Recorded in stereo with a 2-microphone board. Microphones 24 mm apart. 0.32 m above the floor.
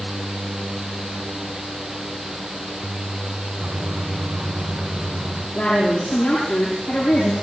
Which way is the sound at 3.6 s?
75° right (ahead or behind).